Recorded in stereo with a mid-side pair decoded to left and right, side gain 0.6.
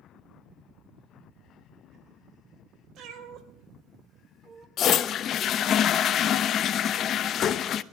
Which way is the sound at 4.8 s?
50° left.